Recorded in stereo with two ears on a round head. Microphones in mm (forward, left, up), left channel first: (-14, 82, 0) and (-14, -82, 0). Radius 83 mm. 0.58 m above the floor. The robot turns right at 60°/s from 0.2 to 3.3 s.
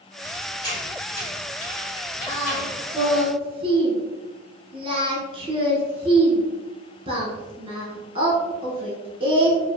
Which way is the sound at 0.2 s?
5° right (ahead or behind).